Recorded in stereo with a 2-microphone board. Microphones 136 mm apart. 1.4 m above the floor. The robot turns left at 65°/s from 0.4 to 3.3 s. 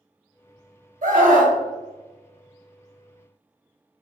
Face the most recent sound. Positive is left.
turn(degrees=150)